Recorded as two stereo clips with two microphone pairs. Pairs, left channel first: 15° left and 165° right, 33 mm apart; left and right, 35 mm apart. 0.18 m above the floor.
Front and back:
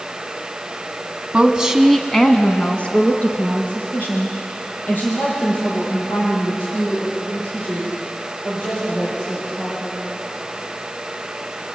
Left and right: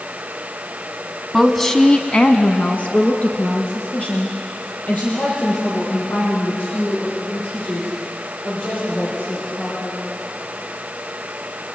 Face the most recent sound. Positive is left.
turn(degrees=40)